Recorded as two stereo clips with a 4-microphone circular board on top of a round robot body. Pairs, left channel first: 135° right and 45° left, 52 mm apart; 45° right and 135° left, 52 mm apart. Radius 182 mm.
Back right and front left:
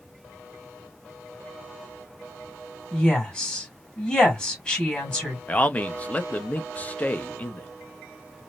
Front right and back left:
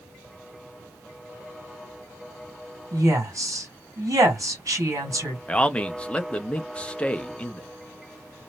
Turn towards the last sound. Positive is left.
turn(degrees=-100)